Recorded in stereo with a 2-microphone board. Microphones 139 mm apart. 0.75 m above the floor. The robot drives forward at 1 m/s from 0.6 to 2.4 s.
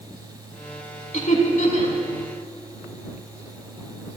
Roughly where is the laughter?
Left.